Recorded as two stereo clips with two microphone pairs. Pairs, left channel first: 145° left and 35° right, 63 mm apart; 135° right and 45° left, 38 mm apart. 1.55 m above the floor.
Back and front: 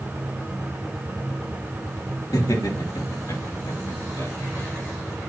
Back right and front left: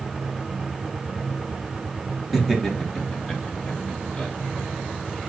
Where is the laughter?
140° left, 3 m; by 4.3 s 155° left, 3.5 m.